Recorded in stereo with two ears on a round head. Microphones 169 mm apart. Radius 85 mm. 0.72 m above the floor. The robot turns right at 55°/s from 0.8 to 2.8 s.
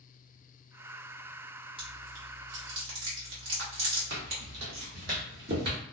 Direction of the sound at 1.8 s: 30° right (ahead or behind).